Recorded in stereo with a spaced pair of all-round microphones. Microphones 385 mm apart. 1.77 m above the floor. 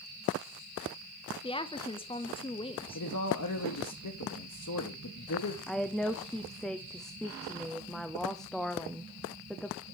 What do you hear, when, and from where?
1.4 s a woman speaking: 15° left (ahead or behind), 0.5 m
3.0 s a man speaking: 50° left (ahead or behind), 0.9 m
5.7 s a woman speaking: centre (ahead or behind), 0.6 m